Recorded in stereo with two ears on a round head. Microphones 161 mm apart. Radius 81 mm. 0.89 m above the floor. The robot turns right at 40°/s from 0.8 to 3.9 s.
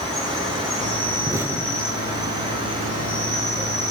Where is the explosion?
20° right (ahead or behind), 1.2 m; by 2.3 s 15° left (ahead or behind), 1.2 m.